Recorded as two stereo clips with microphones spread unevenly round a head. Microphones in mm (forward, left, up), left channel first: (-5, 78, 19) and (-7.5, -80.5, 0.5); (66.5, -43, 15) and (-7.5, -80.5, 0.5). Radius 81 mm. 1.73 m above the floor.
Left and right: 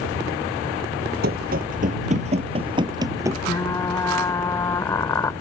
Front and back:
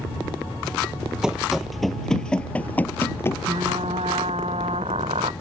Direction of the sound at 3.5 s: 155° left.